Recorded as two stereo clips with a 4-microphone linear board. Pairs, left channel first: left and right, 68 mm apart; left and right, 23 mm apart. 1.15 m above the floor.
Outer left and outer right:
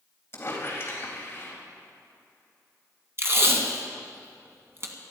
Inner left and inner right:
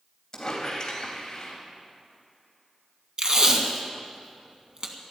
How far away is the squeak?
About 3 m.